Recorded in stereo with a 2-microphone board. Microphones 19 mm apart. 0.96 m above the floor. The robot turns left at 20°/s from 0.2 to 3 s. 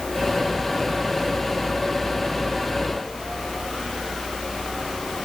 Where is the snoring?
No snoring in this recording.